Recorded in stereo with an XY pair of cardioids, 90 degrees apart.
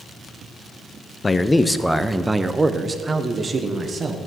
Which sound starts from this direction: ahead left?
A man speaking, at 1.2 s.